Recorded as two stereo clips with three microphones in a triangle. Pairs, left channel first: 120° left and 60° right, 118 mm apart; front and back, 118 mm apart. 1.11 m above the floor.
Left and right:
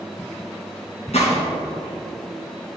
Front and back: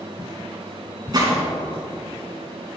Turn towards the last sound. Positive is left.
turn(degrees=125)